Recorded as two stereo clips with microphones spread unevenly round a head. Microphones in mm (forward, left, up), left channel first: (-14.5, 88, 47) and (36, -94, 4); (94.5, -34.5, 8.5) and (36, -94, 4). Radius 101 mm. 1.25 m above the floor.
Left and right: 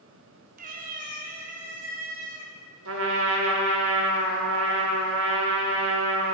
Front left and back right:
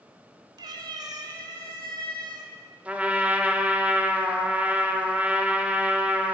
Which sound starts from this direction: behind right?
A cat meowing, at 0.6 s.